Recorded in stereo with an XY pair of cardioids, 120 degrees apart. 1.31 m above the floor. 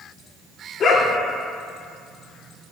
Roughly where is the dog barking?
Ahead left.